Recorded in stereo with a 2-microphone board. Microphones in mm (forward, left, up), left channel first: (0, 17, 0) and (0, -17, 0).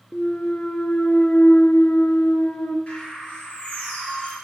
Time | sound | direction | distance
0.1 | a clunk | 65° left (ahead or behind) | 0.6 m
2.9 | a bird | 30° left (ahead or behind) | 4 m